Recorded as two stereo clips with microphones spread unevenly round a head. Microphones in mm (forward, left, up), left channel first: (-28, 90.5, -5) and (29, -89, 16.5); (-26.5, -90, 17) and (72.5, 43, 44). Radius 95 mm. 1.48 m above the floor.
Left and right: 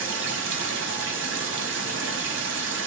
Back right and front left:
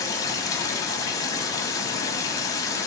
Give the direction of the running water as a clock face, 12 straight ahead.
2 o'clock.